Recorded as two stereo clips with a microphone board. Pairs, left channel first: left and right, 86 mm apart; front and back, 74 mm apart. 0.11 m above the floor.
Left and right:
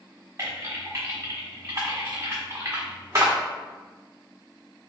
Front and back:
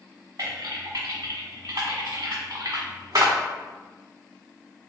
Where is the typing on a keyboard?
140° right, 1.5 m.